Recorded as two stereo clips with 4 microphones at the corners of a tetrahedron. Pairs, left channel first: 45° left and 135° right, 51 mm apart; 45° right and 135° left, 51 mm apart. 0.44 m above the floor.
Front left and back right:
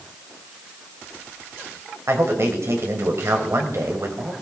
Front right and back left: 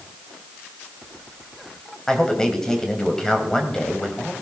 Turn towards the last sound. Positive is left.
turn(degrees=-125)